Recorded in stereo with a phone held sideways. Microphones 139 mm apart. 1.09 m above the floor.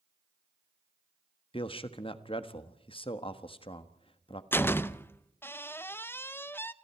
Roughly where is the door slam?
Centre.